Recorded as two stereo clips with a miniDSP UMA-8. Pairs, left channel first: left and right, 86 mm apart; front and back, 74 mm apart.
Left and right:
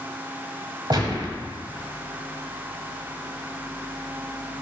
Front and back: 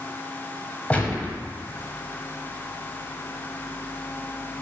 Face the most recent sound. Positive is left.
turn(degrees=-65)